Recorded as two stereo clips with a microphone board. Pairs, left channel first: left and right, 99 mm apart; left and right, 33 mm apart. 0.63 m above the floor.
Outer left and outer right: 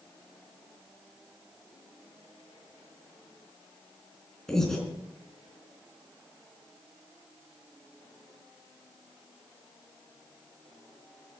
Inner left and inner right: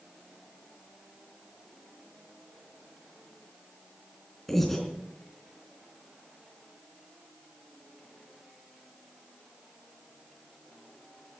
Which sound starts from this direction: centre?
Breathing, at 4.5 s.